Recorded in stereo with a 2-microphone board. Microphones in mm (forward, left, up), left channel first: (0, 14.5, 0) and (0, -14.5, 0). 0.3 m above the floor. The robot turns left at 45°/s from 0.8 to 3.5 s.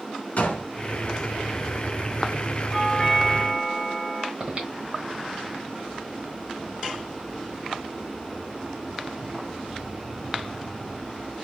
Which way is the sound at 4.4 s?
35° right (ahead or behind).